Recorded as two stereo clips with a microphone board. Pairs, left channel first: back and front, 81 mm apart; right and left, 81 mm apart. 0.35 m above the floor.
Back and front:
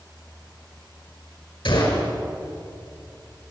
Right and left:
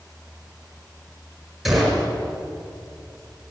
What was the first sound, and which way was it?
A gunshot, 175° left.